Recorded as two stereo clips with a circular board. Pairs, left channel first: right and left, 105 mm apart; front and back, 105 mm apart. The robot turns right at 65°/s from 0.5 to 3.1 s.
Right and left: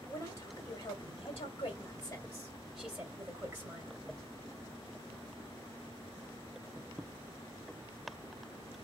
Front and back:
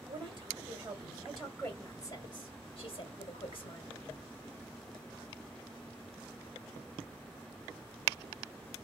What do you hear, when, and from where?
0.1 s a woman speaking: 145° right, 2 m; by 4.0 s 25° left, 2 m